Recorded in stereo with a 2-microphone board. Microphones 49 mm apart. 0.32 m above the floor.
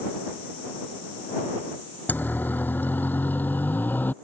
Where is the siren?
40° left (ahead or behind).